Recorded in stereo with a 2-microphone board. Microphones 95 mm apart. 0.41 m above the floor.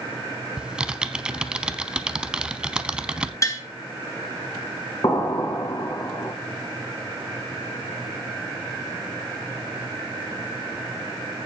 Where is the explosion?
45° left (ahead or behind), 1.4 m.